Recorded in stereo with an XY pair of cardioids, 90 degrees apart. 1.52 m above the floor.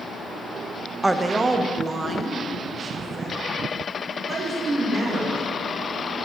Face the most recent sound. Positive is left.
turn(degrees=-35)